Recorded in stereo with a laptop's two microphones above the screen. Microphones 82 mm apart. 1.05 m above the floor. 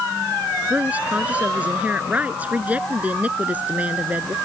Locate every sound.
0.7 s a woman speaking: 15° right (ahead or behind)